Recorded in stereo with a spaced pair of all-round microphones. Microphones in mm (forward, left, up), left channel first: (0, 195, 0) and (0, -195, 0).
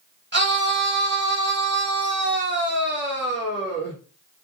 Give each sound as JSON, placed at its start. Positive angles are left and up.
{"t": 0.3, "sound": "a scream", "side_deg": -30, "distance_m": 1.4}